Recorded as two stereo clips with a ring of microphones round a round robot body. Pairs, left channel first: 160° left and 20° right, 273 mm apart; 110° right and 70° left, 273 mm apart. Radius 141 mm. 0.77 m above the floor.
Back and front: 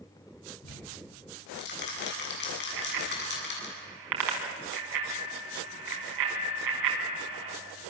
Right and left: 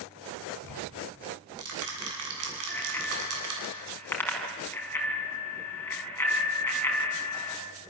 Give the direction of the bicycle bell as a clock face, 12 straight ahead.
1 o'clock.